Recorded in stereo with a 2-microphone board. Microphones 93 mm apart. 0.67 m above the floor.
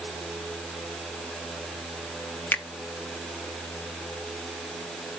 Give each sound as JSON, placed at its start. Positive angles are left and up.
{"t": 2.5, "sound": "a finger snap", "side_deg": 20, "distance_m": 0.7}